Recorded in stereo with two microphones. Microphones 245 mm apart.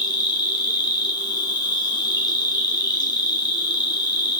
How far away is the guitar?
I don't hear a guitar.